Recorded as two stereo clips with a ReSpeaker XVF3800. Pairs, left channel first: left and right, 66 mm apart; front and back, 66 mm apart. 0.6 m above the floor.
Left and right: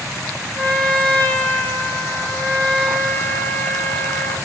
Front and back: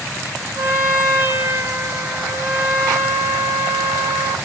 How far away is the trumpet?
About 0.9 m.